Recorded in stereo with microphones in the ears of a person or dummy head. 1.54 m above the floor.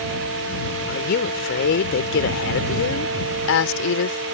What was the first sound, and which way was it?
A woman speaking, 55° left (ahead or behind).